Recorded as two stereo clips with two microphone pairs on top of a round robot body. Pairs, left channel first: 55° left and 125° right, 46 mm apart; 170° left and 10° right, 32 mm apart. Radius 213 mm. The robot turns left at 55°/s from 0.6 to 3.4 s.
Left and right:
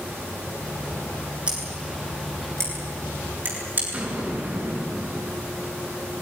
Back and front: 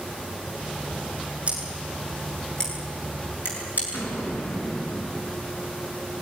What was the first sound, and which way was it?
Scissors, 60° right.